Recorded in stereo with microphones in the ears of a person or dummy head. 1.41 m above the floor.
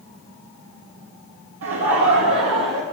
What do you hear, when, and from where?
1.6 s laughter: 75° right (ahead or behind), 1.7 m